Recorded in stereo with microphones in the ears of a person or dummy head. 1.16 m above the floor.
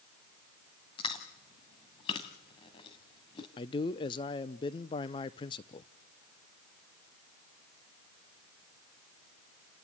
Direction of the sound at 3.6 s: 25° left (ahead or behind).